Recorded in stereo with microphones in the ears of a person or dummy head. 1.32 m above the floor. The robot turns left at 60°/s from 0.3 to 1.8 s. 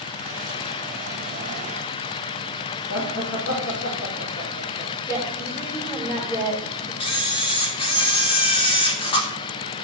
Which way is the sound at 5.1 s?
15° left (ahead or behind).